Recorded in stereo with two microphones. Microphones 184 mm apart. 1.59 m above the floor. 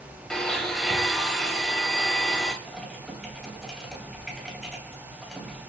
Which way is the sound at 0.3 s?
Centre (ahead or behind).